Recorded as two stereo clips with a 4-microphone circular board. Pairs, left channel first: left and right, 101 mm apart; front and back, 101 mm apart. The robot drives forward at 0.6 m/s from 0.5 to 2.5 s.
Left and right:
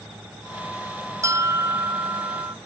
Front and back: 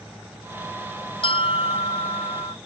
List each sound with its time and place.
1.2 s a bell: 30° right